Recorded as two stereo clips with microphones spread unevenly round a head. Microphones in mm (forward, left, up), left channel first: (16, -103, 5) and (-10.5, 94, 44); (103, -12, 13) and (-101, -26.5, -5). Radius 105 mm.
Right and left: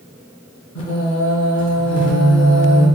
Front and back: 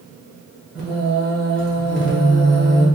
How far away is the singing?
About 1.5 m.